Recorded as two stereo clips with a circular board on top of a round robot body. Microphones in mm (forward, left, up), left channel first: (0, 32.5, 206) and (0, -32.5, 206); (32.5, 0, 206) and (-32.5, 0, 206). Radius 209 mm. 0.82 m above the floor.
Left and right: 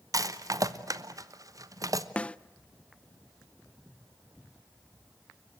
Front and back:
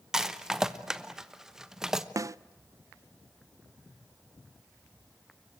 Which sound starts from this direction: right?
A rattle, at 0.1 s.